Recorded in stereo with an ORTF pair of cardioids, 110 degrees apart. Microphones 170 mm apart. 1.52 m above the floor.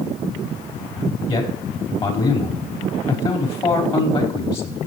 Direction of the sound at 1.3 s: 35° left.